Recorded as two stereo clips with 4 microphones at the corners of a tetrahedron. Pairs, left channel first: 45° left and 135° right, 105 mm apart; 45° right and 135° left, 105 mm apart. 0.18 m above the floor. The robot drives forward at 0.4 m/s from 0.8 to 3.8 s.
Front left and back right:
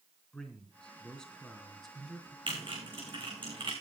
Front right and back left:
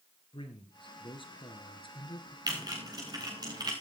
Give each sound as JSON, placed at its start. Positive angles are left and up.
{"t": 0.3, "sound": "a man speaking", "azimuth_deg": -35, "distance_m": 2.5}
{"t": 2.5, "sound": "typing on a keyboard", "azimuth_deg": -170, "distance_m": 4.5}